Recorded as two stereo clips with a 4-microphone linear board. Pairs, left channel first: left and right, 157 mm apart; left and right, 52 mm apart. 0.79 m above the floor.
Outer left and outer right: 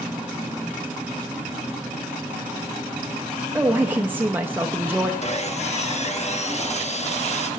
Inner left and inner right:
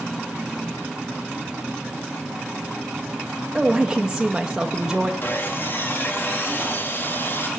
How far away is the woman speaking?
About 0.6 m.